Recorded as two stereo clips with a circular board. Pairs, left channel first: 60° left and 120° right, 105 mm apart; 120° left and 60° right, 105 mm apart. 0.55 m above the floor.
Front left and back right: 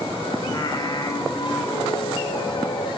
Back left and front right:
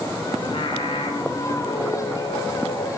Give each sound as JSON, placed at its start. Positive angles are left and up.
{"t": 0.4, "sound": "singing", "azimuth_deg": 100, "distance_m": 2.0}